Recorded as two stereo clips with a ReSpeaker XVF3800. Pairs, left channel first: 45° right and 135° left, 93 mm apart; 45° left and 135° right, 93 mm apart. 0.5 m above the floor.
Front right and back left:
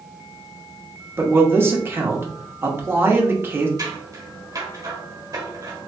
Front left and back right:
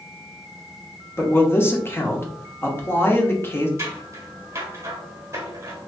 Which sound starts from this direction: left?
A man speaking, at 1.2 s.